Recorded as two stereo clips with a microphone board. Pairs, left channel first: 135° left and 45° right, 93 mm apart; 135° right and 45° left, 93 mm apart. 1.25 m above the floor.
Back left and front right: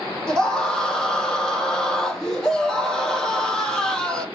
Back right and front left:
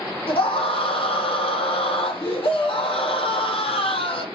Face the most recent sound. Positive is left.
turn(degrees=-140)